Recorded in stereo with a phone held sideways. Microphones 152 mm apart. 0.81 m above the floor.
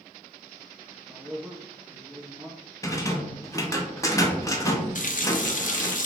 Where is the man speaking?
10° right (ahead or behind), 1.7 m.